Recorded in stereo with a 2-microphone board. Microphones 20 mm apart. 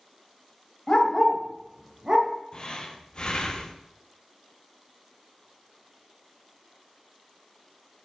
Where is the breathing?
40° left (ahead or behind), 0.6 m.